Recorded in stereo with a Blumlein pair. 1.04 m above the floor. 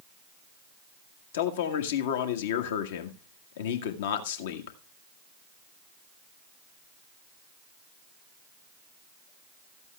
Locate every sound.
1.3 s a man speaking: 55° left, 1.7 m